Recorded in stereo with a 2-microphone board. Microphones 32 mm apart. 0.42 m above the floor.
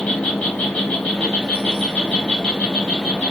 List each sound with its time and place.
0.0 s an insect: 55° left (ahead or behind), 1.0 m